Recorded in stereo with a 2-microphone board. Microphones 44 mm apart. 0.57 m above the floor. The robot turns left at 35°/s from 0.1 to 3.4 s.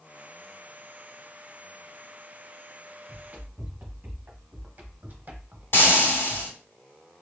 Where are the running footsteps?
40° right (ahead or behind), 2.0 m; by 6.5 s 30° right (ahead or behind), 0.7 m.